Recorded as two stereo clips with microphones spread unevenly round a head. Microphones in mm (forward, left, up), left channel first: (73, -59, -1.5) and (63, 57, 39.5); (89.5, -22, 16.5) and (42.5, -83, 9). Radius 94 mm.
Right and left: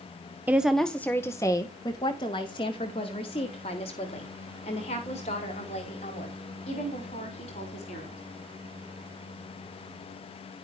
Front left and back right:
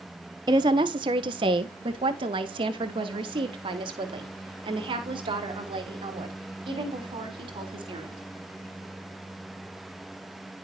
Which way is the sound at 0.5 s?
Straight behind.